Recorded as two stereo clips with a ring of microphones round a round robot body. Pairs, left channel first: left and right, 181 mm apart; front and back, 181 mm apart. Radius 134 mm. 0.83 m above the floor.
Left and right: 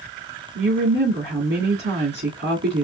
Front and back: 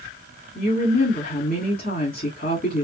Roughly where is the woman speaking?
Ahead right.